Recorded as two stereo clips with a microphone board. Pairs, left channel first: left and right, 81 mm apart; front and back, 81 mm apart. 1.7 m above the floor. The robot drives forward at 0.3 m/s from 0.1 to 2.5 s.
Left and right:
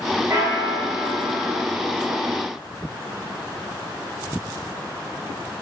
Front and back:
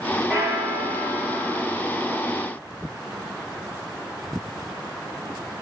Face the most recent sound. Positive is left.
turn(degrees=-140)